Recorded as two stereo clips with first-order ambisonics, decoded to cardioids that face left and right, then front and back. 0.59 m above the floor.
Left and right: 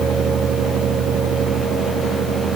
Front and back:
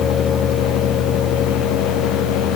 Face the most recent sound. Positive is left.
No sound to turn to.